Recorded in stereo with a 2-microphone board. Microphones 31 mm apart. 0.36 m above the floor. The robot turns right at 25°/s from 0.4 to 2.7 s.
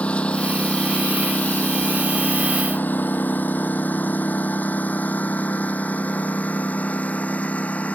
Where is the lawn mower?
45° left (ahead or behind); by 8.0 s 50° left (ahead or behind).